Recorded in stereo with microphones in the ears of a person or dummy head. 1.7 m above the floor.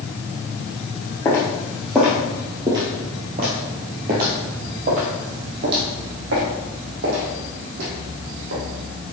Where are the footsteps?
15° left (ahead or behind), 1.9 m; by 8.6 s 65° right (ahead or behind), 4 m.